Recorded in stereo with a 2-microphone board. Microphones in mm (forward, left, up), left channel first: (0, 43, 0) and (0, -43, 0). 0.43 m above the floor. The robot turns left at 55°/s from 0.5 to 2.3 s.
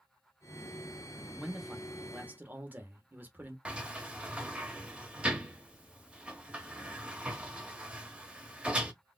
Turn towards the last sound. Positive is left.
turn(degrees=-15)  # may be behind; listen again after turning